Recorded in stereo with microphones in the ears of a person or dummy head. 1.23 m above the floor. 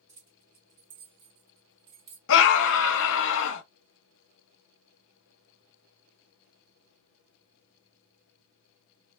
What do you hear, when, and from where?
0.1 s keys jangling: 30° right (ahead or behind), 1.4 m; by 2.2 s 60° right (ahead or behind), 1.2 m
2.3 s a scream: 65° left (ahead or behind), 0.6 m